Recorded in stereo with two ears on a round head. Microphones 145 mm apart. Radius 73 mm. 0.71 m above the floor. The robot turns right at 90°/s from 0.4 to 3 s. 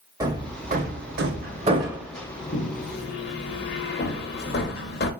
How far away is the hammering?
About 0.8 m.